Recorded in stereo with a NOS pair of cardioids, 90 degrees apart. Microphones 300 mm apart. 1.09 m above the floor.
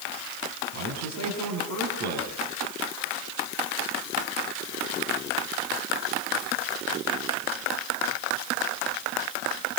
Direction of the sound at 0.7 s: 65° right.